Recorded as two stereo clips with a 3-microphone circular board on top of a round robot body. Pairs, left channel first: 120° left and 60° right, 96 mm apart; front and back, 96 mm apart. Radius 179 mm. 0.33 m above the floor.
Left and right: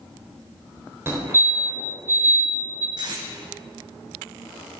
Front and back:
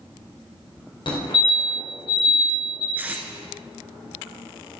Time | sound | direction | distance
1.1 | a fire alarm | straight ahead | 3 m
3.0 | tape being pulled | 105° right | 1.1 m